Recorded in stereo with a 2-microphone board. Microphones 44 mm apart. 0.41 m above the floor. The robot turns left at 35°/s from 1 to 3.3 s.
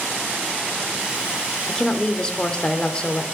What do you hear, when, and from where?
1.7 s a woman speaking: 15° left (ahead or behind), 0.8 m; by 3.2 s 20° left (ahead or behind), 0.8 m